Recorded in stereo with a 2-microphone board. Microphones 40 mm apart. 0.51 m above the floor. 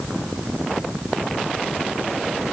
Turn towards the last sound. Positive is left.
No sound to turn to.